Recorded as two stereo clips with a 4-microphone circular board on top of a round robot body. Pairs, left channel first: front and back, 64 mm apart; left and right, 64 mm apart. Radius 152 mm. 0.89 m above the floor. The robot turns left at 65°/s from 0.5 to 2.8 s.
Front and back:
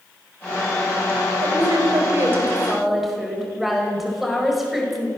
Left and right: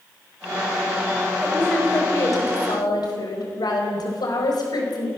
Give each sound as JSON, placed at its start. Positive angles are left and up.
{"t": 1.4, "sound": "a woman speaking", "azimuth_deg": -175, "distance_m": 5.0}